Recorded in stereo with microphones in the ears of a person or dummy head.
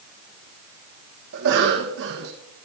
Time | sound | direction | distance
1.3 | a cough | 70° right (ahead or behind) | 1.2 m